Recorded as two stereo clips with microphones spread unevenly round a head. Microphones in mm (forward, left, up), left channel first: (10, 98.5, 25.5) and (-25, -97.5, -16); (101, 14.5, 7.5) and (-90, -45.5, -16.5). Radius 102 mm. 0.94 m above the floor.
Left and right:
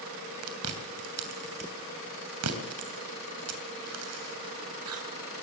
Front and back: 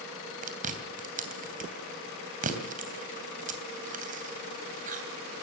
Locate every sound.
0.4 s chewing: 110° right, 3 m